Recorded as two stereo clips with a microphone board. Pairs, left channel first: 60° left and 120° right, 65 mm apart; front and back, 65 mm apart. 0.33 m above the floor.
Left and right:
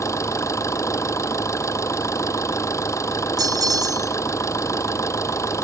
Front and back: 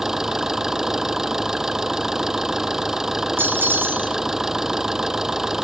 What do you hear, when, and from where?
0.0 s an engine running: 95° left
3.4 s a bell: 125° right